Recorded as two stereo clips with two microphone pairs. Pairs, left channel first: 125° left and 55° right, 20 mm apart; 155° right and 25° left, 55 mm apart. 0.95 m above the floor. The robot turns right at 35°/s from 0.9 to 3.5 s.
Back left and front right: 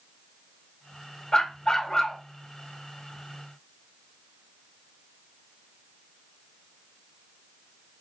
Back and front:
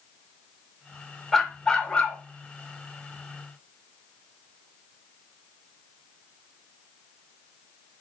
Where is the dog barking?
125° left, 0.7 m; by 2.2 s 155° left, 0.7 m.